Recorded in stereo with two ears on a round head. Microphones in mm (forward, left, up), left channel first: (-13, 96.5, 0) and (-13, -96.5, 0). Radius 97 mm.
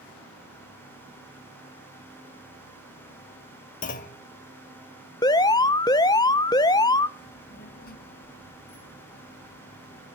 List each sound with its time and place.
3.8 s a clunk: 40° left (ahead or behind), 1.2 m
5.2 s an alarm: 15° left (ahead or behind), 0.5 m
7.2 s a child speaking: 45° left (ahead or behind), 1.9 m